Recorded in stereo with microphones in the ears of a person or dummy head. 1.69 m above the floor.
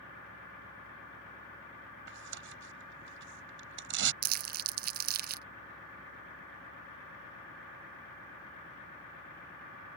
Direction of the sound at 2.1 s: 70° right (ahead or behind).